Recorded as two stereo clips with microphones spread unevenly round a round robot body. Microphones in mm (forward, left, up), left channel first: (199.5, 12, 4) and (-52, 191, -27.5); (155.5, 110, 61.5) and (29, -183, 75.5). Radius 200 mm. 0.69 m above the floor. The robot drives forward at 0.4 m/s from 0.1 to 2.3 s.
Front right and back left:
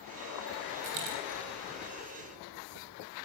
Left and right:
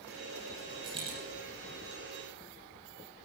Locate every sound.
0.8 s a dropped coin: 170° left, 5.5 m